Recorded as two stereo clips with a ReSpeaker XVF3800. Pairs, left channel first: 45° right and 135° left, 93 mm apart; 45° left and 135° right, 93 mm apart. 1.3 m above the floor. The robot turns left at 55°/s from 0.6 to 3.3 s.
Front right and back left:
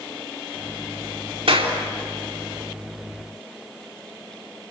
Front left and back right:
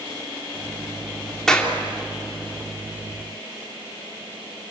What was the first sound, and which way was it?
A clap, 130° left.